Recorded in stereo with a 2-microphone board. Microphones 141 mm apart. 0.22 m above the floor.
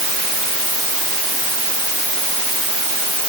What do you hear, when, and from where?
Only background noise.